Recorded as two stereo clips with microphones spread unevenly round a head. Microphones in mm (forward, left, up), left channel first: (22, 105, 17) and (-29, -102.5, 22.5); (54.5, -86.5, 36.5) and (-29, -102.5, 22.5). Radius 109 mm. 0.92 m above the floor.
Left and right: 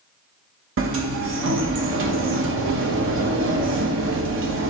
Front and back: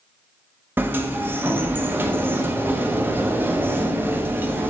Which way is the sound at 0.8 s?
115° right.